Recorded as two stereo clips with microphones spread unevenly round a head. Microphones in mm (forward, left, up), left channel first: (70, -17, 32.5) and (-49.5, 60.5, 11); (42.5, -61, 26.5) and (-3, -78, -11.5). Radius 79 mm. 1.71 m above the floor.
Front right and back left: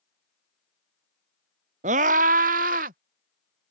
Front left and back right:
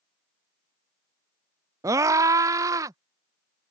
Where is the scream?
165° right; by 3.0 s 175° right.